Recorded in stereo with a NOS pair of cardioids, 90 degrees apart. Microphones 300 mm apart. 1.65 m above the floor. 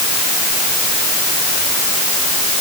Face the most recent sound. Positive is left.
No sound to turn to.